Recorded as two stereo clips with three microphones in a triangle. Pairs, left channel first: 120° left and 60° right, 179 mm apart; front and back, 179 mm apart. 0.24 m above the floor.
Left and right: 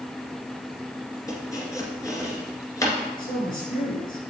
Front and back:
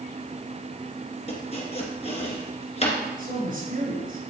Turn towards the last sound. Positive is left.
turn(degrees=150)